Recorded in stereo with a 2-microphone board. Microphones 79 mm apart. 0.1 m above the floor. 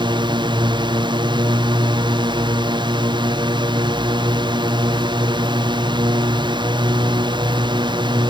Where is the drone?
75° right (ahead or behind).